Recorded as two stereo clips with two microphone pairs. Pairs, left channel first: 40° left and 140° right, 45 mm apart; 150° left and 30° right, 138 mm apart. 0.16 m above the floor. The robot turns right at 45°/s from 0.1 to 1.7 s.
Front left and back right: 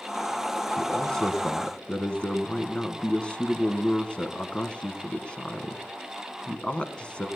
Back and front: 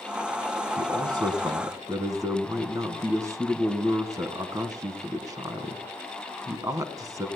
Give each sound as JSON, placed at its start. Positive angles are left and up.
{"t": 0.8, "sound": "a man speaking", "azimuth_deg": -35, "distance_m": 1.2}